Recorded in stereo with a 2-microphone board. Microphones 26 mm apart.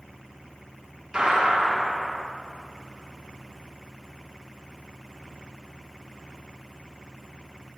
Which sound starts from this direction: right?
A gunshot, at 1.1 s.